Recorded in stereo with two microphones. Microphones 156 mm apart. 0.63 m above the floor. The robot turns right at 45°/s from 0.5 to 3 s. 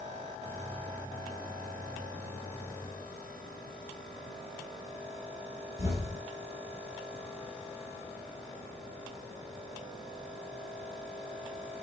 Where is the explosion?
20° right (ahead or behind), 4 m.